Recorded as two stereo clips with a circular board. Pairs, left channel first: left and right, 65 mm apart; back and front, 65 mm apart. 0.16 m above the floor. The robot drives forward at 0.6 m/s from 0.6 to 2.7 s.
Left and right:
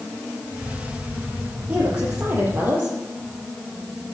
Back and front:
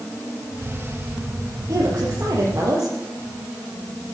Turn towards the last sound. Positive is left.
turn(degrees=-30)